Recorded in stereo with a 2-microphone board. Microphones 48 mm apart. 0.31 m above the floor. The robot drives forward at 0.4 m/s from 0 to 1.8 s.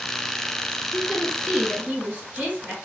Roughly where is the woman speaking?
Right.